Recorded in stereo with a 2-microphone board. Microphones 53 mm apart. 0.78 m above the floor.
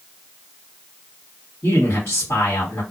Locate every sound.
1.6 s a man speaking: 50° left (ahead or behind), 1.6 m